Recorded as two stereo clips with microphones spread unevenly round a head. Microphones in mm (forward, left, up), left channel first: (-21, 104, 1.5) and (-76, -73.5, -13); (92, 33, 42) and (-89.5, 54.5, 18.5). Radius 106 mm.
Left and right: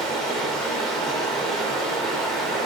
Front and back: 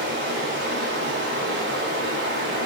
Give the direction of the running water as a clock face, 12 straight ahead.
7 o'clock.